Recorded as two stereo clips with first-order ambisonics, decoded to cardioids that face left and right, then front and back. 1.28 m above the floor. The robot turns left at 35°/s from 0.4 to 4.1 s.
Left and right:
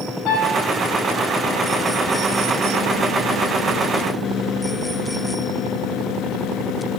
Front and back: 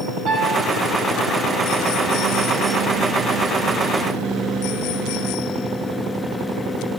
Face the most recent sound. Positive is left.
turn(degrees=-25)